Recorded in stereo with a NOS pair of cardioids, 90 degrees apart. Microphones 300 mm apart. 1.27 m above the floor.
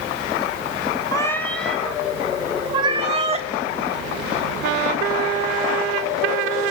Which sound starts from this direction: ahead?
A cat meowing, at 1.1 s.